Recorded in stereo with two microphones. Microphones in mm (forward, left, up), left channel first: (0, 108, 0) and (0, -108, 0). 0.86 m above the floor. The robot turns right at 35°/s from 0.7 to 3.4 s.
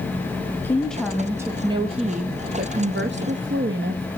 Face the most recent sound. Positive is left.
turn(degrees=-95)